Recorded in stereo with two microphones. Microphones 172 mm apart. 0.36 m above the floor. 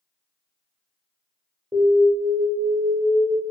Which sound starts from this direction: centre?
An alarm, at 1.7 s.